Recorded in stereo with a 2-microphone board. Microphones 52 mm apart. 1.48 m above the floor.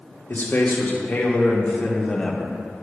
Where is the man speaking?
45° left (ahead or behind), 2.0 m; by 2.6 s centre (ahead or behind), 1.1 m.